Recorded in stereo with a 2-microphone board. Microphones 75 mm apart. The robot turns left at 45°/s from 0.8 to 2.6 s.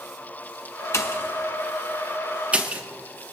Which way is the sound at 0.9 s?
40° left (ahead or behind).